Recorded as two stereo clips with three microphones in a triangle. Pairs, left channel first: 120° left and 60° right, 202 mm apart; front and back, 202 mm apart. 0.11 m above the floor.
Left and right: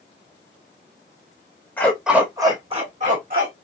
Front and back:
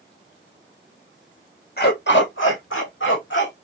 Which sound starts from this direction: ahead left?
A dog barking, at 1.8 s.